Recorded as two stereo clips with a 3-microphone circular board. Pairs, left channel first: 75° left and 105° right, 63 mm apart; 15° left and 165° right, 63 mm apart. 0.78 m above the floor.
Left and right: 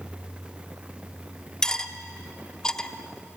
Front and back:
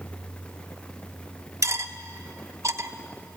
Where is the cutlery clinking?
155° left, 0.8 m.